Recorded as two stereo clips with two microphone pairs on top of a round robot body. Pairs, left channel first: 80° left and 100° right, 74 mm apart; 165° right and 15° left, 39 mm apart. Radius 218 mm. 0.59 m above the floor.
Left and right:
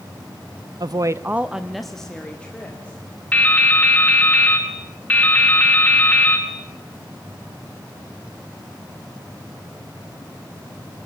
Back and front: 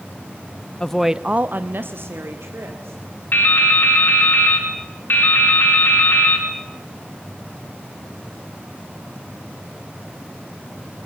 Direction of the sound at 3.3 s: 155° left.